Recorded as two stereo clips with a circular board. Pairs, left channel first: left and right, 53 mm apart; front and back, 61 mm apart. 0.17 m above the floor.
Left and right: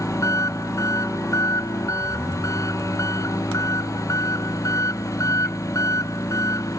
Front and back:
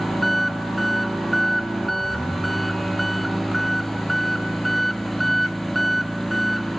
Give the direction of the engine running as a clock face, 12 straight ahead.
9 o'clock.